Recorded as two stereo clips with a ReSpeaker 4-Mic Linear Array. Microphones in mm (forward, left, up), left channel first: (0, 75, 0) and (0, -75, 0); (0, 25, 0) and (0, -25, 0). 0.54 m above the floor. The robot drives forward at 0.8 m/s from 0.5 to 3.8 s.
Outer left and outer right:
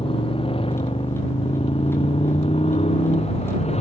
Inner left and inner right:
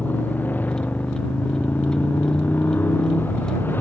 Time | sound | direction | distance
0.0 | a motorcycle | 35° left (ahead or behind) | ?